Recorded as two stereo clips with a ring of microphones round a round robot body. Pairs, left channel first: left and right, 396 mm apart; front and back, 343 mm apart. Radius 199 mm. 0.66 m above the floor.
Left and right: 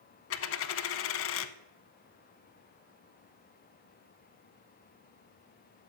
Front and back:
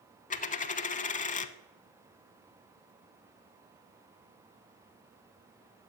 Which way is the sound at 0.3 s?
55° left.